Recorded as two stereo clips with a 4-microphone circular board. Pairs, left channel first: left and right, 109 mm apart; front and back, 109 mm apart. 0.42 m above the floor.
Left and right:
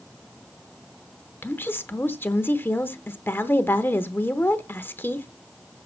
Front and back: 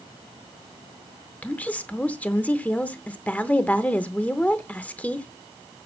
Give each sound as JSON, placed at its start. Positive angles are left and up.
{"t": 1.4, "sound": "a woman speaking", "azimuth_deg": 55, "distance_m": 0.8}